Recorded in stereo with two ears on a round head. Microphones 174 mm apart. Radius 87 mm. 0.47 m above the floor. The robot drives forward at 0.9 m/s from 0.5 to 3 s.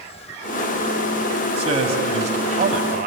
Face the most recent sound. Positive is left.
turn(degrees=-45)  # may be behind; listen again after turning